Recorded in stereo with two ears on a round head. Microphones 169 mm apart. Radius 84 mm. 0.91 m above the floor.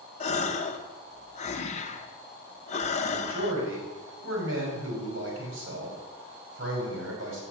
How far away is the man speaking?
About 4.5 m.